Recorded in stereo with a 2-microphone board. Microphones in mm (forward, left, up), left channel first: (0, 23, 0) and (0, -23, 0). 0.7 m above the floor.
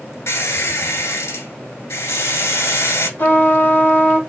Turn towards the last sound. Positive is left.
turn(degrees=50)  # may be behind; listen again after turning